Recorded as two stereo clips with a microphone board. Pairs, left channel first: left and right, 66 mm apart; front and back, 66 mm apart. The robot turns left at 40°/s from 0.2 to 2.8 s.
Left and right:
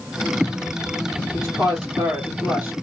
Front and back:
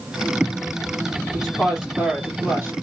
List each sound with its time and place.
1.3 s a woman speaking: 85° right, 2 m; by 2.8 s 145° right, 2 m